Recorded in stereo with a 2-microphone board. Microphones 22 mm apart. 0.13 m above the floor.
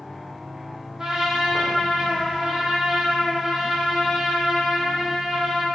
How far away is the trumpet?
About 1.5 m.